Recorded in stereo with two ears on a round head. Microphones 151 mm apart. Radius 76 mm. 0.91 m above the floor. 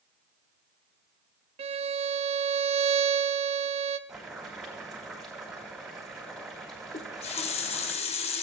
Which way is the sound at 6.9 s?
35° left (ahead or behind).